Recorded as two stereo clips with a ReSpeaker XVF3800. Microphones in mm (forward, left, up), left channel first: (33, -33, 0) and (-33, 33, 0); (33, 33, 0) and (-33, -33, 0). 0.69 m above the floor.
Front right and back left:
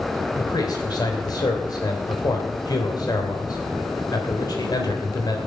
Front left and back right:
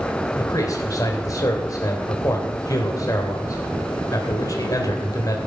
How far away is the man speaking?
About 3 m.